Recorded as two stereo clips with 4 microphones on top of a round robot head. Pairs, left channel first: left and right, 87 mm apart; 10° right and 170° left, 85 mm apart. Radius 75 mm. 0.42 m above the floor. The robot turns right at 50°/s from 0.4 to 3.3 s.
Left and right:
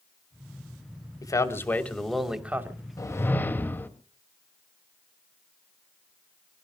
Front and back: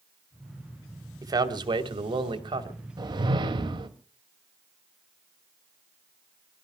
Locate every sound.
1.2 s a man speaking: 130° left, 2.5 m; by 2.8 s 150° right, 2.5 m
3.0 s a whoosh: 140° left, 2 m; by 3.9 s 155° left, 2 m